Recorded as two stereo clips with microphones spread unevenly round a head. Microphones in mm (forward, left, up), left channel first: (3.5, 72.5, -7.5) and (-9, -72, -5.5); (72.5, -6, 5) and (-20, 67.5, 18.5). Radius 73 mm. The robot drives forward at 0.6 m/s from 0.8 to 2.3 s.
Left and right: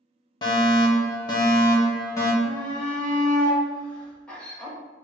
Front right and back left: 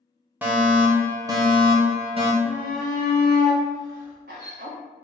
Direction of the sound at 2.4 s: 165° left.